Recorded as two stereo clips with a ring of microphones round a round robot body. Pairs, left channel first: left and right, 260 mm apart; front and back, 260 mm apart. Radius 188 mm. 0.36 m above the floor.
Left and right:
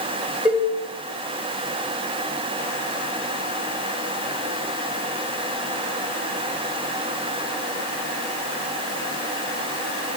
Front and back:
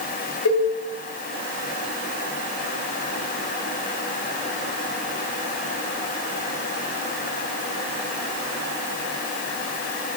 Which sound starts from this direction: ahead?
A cowbell, at 0.5 s.